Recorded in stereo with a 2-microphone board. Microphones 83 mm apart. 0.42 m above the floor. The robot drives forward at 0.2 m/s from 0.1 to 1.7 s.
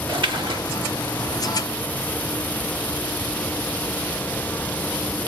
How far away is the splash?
About 0.6 m.